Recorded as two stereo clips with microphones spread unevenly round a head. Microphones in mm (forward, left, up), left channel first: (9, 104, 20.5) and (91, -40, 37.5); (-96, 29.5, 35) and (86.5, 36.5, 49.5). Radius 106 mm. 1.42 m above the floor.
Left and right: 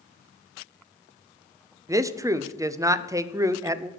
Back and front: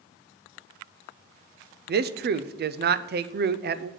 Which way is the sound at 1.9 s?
15° left.